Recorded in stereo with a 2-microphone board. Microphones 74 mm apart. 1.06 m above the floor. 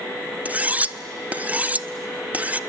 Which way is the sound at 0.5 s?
20° right (ahead or behind).